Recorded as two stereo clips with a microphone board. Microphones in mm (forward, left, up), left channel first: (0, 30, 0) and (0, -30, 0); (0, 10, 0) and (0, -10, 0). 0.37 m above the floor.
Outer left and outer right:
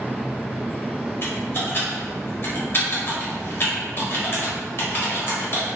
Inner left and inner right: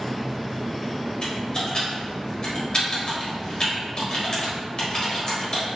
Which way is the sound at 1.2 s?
45° left (ahead or behind).